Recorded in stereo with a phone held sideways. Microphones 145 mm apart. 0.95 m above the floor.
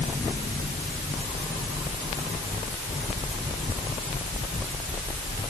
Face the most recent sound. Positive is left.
No sound to turn to.